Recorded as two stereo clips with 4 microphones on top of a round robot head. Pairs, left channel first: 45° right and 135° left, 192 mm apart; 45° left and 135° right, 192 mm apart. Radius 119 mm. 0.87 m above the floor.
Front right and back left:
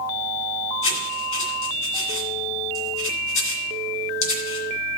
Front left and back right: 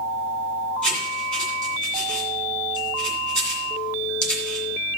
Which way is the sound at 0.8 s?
40° right.